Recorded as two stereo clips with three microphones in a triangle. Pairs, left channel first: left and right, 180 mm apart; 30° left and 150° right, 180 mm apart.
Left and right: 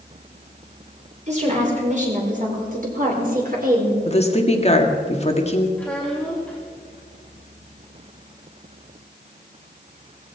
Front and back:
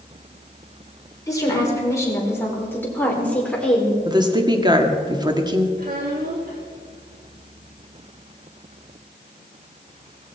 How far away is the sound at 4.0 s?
About 2.0 m.